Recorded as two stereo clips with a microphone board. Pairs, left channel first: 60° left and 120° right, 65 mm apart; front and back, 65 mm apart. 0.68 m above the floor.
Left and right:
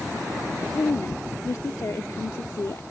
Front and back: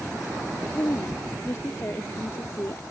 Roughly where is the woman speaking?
Ahead left.